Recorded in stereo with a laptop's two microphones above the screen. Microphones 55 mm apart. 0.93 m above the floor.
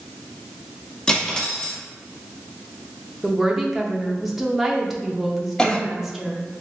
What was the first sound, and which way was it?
Cutlery clinking, 15° left (ahead or behind).